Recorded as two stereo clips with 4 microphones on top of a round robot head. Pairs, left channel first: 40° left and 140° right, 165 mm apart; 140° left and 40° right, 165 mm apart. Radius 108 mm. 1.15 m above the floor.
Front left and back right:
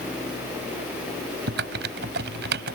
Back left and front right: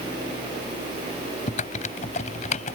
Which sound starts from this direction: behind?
Typing on a keyboard, at 1.5 s.